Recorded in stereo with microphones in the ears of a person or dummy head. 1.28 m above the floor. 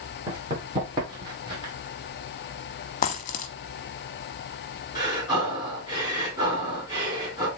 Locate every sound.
0.3 s running footsteps: 25° right (ahead or behind), 5 m; by 1.7 s 20° right (ahead or behind), 3.5 m
3.0 s a dropped coin: 40° left (ahead or behind), 0.9 m
5.0 s breathing: 25° right (ahead or behind), 3.5 m